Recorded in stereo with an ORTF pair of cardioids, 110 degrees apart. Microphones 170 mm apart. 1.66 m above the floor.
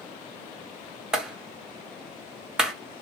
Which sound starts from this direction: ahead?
A clap, at 1.1 s.